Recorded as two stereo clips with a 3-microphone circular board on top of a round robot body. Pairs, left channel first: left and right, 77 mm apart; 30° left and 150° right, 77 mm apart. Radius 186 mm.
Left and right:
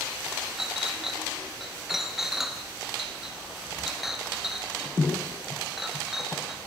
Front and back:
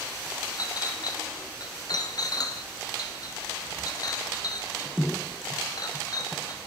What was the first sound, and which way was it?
A clink, 5° right.